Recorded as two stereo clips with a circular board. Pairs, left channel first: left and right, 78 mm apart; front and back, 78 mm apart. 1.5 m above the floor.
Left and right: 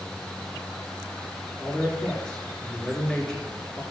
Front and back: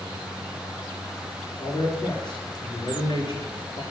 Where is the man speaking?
15° left, 3.5 m.